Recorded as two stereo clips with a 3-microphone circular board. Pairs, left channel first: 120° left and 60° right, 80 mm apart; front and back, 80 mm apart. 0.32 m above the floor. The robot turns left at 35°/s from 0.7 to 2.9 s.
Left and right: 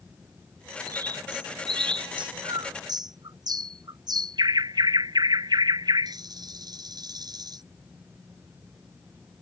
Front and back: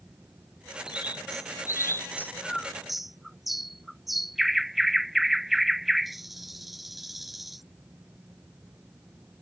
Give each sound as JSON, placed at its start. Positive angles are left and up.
{"t": 0.9, "sound": "a bird", "azimuth_deg": -20}